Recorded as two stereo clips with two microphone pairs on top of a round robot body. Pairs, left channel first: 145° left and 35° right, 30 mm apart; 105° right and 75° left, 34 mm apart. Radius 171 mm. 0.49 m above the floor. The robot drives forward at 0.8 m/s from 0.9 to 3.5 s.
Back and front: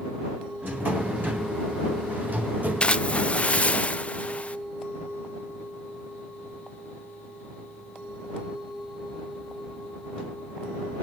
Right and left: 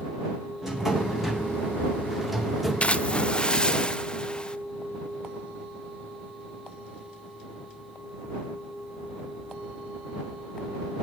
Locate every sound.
0.6 s a drawer: 5° right, 3.5 m
2.8 s a splash: 160° right, 0.8 m; by 4.6 s 170° right, 1.3 m